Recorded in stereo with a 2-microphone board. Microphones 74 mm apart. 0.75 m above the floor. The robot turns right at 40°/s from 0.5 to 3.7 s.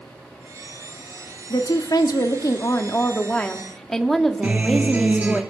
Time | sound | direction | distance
1.5 | a woman speaking | 85° left | 1.3 m
4.4 | a guitar | 25° right (ahead or behind) | 2.5 m